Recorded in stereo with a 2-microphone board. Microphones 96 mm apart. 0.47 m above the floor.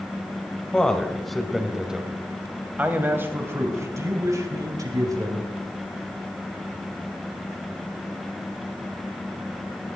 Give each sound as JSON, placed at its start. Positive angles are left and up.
{"t": 0.7, "sound": "a man speaking", "side_deg": 10, "distance_m": 2.5}